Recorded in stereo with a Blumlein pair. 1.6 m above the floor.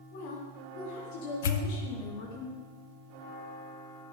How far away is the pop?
About 1.2 m.